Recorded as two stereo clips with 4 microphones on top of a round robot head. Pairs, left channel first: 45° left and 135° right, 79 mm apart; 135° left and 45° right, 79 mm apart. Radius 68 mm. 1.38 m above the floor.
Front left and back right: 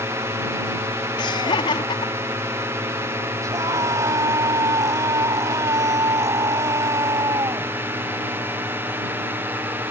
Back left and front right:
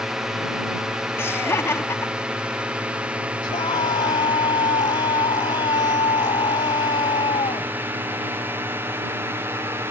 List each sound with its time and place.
0.0 s a drone: 125° right; by 9.9 s 85° right
1.2 s laughter: 75° left
3.4 s a scream: 170° left